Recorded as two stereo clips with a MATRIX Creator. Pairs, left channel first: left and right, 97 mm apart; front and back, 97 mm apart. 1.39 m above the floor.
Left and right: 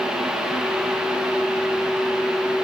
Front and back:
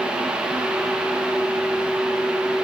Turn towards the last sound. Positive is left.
No sound to turn to.